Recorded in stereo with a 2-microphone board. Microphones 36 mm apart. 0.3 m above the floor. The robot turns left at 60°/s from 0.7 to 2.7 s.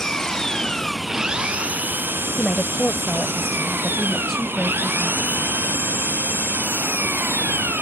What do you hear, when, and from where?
0.0 s an engine running: 15° left; by 7.8 s 105° right
2.4 s a woman speaking: 5° right (ahead or behind); by 5.2 s 10° left (ahead or behind)